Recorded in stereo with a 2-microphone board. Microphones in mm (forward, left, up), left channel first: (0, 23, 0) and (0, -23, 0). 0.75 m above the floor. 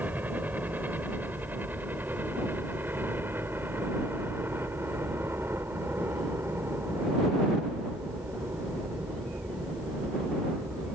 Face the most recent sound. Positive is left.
turn(degrees=-60)  # may be behind; listen again after turning